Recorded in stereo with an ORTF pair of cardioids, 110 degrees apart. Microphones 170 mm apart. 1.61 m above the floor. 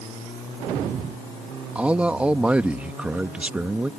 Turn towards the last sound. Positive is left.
turn(degrees=-10)